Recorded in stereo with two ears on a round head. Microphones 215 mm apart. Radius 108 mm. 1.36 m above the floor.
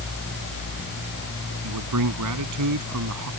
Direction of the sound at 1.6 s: 85° right.